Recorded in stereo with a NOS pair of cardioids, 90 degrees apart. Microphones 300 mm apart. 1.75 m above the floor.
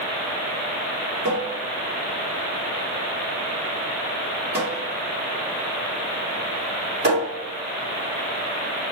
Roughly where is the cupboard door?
Ahead right.